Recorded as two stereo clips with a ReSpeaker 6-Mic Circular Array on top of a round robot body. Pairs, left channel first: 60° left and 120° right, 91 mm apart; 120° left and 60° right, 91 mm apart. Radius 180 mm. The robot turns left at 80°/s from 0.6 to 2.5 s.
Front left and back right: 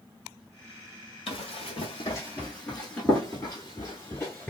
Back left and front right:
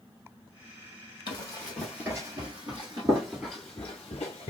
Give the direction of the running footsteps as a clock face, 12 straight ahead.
9 o'clock.